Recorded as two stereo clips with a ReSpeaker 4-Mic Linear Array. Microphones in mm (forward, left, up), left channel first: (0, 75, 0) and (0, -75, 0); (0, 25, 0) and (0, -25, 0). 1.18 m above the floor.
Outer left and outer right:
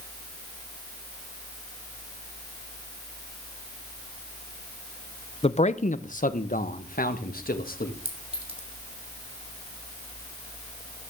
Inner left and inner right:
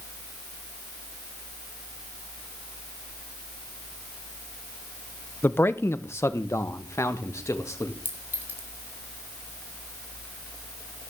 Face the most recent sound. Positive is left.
turn(degrees=-40)  # may be behind; listen again after turning